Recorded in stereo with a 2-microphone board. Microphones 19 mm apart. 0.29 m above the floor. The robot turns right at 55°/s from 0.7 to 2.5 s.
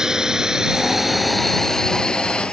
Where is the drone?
30° right (ahead or behind); by 2.5 s 70° left (ahead or behind).